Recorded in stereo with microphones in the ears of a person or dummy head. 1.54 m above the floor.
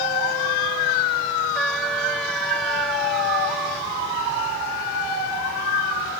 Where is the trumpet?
Centre (ahead or behind).